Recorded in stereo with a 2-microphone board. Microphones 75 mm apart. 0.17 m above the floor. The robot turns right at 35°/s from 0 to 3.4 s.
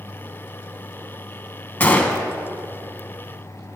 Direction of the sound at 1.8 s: 25° left (ahead or behind).